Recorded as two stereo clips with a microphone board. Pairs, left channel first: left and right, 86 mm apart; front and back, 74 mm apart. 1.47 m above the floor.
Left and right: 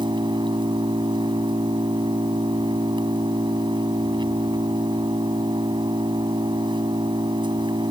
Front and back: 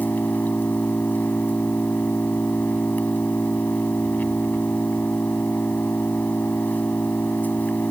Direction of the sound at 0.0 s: 65° right.